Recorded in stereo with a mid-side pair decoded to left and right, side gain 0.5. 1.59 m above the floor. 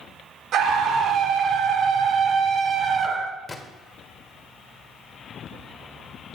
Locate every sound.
0.5 s a scream: 65° right, 2.5 m; by 3.4 s 30° right, 1.6 m
3.5 s a gunshot: 25° left, 1.5 m